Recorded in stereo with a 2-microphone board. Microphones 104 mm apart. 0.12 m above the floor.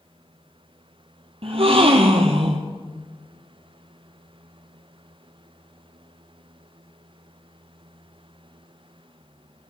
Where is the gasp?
65° right (ahead or behind), 0.9 m.